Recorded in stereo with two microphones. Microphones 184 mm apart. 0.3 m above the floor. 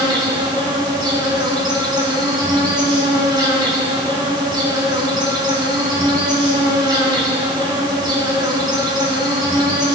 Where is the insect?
25° right (ahead or behind), 4 m.